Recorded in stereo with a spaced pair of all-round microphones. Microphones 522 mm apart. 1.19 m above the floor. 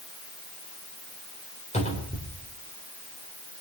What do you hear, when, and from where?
1.7 s a cupboard door: 10° left (ahead or behind), 4 m